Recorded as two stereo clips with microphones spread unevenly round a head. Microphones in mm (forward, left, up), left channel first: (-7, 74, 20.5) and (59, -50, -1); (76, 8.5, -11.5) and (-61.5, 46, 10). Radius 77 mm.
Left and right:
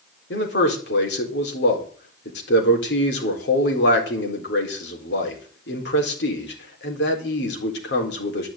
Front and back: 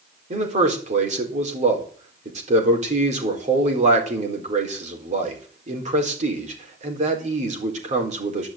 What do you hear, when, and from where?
0.3 s a man speaking: 125° left, 4 m